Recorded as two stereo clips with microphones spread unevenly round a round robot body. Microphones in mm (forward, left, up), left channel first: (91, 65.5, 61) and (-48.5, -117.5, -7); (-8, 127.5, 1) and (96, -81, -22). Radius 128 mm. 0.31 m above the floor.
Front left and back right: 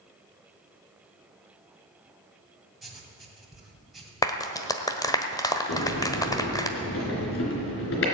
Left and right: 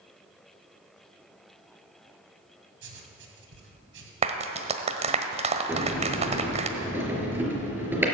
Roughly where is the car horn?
I don't hear a car horn.